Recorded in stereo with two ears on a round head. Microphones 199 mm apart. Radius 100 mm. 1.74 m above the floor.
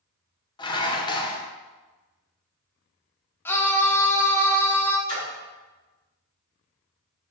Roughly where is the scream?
Centre.